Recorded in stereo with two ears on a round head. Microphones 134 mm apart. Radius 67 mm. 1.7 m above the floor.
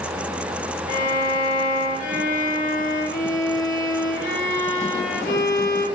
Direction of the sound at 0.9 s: 60° left (ahead or behind).